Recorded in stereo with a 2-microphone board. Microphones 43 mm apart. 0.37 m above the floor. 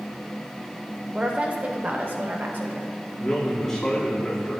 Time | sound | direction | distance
1.1 | a woman speaking | 20° right (ahead or behind) | 0.8 m
3.2 | a man speaking | 15° left (ahead or behind) | 3 m